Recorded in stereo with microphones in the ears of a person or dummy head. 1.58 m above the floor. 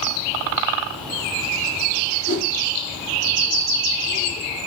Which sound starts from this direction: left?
A whoosh, at 2.3 s.